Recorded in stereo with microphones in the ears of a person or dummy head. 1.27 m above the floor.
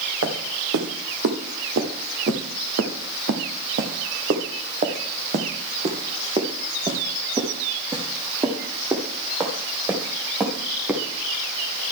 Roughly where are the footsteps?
Right.